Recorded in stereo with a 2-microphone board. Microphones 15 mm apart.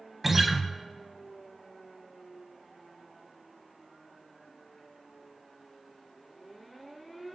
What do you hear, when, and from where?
0.2 s a guitar: 10° right (ahead or behind), 0.5 m